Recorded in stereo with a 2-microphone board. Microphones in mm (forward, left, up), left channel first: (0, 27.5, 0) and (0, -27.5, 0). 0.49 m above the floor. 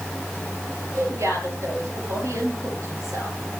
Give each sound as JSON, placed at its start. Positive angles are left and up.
{"t": 0.9, "sound": "a woman speaking", "side_deg": -60, "distance_m": 9.0}